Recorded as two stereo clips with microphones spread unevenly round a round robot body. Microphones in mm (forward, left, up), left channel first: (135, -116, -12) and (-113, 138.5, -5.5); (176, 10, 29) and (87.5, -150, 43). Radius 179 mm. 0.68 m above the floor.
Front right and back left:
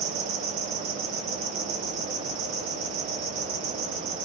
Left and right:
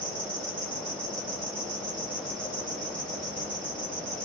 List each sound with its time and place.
0.0 s an insect: 170° right, 1.2 m